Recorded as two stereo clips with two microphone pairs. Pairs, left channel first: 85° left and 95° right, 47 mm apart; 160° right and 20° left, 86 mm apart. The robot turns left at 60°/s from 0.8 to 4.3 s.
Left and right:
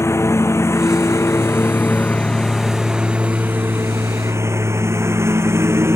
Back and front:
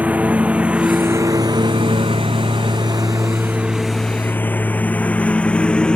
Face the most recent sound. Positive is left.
turn(degrees=-85)